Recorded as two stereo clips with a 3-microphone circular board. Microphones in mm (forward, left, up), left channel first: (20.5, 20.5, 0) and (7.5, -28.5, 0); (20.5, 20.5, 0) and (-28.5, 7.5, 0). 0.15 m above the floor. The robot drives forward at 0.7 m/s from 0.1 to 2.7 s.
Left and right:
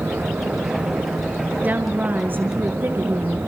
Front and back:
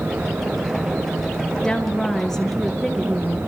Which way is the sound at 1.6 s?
55° right.